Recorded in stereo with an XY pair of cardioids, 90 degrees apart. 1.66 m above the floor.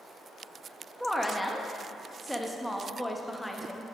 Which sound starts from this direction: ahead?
A woman speaking, at 1.0 s.